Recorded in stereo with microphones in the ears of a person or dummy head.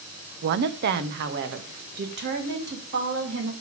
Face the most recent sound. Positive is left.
turn(degrees=-60)  # may be behind; listen again after turning